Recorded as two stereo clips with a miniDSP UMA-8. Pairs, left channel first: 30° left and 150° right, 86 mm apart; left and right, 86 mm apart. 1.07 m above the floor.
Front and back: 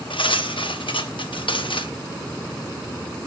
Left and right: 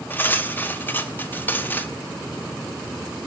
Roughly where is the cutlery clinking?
Ahead left.